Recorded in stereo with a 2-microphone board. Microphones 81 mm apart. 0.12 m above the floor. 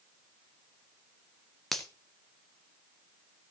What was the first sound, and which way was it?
A finger snap, centre (ahead or behind).